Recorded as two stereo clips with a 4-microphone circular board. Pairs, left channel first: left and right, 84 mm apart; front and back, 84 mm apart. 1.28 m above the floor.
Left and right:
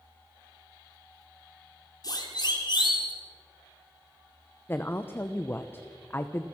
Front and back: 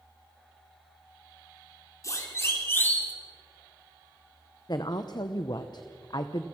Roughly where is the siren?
Ahead left.